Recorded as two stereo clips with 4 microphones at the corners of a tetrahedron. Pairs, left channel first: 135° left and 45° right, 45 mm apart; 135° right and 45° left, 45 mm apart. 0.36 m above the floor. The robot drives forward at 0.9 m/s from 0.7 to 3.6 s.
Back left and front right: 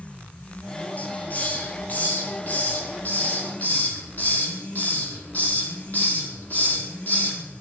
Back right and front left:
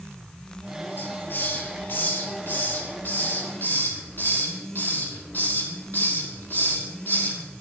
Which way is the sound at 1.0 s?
170° right.